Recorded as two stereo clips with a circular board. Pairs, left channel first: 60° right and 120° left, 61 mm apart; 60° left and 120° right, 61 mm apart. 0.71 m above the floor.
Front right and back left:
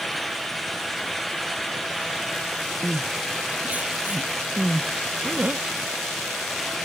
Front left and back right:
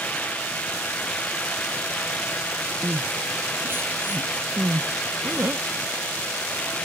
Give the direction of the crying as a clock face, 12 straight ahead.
6 o'clock.